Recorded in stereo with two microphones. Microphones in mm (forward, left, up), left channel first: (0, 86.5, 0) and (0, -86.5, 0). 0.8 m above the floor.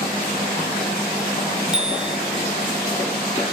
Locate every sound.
1.7 s a bicycle bell: 5° right (ahead or behind)